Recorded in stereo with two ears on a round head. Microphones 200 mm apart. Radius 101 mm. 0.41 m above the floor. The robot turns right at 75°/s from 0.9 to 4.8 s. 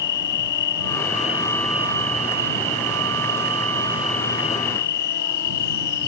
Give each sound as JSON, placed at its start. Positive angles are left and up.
{"t": 0.0, "sound": "an insect", "azimuth_deg": 120}